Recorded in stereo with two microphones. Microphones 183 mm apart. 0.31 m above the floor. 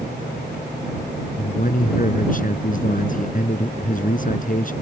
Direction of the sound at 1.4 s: 50° left (ahead or behind).